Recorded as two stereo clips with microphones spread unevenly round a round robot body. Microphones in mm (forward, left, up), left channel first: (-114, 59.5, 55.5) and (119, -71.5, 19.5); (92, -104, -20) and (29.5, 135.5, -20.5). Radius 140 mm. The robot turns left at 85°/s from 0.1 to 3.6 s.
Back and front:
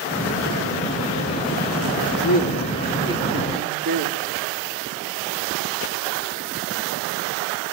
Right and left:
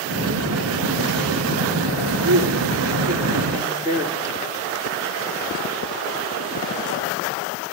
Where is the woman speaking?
150° left, 3 m; by 4.7 s 30° left, 3 m.